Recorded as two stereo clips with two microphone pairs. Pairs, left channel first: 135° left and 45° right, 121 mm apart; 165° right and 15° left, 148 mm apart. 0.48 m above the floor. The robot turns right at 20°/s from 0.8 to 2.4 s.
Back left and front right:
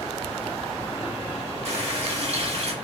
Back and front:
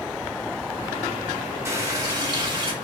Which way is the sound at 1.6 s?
50° right.